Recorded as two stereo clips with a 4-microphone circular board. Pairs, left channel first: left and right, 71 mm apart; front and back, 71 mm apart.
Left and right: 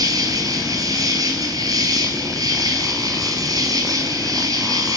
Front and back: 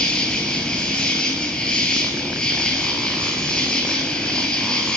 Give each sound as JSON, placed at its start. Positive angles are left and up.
{"t": 0.0, "sound": "an insect", "azimuth_deg": -75, "distance_m": 1.4}